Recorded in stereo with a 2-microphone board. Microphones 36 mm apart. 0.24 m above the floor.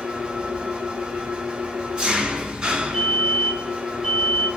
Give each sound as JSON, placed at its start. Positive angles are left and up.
{"t": 0.0, "sound": "an engine running", "side_deg": -20, "distance_m": 1.5}
{"t": 2.9, "sound": "a fire alarm", "side_deg": -5, "distance_m": 2.0}